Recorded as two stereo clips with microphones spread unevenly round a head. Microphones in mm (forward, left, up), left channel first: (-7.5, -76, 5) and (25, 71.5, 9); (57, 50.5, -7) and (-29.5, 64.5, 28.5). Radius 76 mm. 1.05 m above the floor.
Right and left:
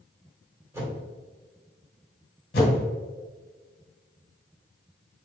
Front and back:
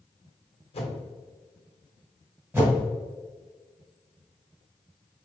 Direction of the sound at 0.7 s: 5° left.